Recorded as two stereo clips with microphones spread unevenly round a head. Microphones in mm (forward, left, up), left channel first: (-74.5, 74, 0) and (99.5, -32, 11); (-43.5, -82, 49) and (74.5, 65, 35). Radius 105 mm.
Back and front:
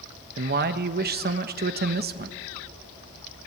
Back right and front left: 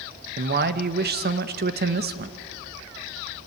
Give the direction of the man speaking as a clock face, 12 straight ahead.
12 o'clock.